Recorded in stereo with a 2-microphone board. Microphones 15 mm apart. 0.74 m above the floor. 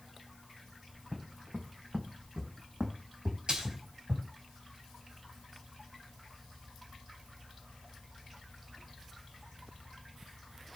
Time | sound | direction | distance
0.9 | footsteps | 60° right (ahead or behind) | 3.5 m
3.5 | a splash | 65° right (ahead or behind) | 4 m